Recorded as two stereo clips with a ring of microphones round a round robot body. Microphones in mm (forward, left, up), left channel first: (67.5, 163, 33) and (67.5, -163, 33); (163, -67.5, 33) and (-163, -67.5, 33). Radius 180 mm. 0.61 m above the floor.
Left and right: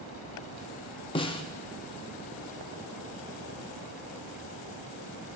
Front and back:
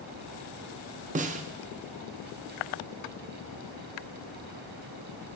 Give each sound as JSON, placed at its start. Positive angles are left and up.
{"t": 1.1, "sound": "a snare drum", "azimuth_deg": 145, "distance_m": 0.6}